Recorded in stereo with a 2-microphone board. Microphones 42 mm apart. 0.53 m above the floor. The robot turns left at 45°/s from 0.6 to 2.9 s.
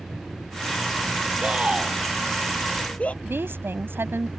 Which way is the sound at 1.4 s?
30° right (ahead or behind).